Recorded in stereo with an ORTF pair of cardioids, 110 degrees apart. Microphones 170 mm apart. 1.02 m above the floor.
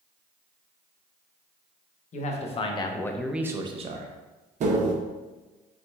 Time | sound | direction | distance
2.1 | a man speaking | 45° left | 1.0 m
4.6 | tapping | 45° right | 0.9 m